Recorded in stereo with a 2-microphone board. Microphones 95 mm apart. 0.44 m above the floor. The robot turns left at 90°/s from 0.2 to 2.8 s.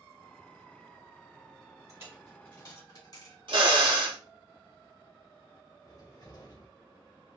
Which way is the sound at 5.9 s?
40° left (ahead or behind).